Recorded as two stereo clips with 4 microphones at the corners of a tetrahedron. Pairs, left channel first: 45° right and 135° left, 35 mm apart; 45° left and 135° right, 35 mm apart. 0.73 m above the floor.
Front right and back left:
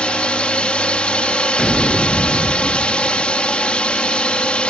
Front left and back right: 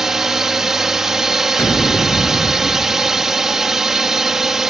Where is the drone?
70° right.